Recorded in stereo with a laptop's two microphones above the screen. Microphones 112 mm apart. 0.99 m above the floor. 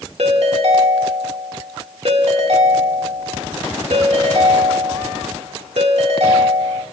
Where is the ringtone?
70° right (ahead or behind), 1.8 m.